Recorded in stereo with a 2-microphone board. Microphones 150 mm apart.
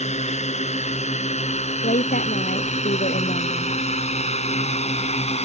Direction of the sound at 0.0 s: 50° left (ahead or behind).